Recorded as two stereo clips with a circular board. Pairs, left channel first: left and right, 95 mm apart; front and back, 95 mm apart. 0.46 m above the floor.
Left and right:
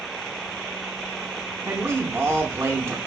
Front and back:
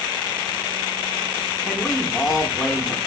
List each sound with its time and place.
1.6 s a man speaking: 90° right, 0.8 m